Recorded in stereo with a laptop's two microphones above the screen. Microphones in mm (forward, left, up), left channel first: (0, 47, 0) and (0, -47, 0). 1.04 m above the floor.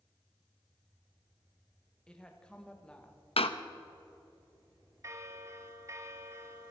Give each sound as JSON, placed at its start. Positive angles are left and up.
{"t": 2.1, "sound": "a woman speaking", "side_deg": 10, "distance_m": 1.2}
{"t": 3.4, "sound": "a door slam", "side_deg": 85, "distance_m": 0.6}
{"t": 5.0, "sound": "a bell", "side_deg": -35, "distance_m": 0.7}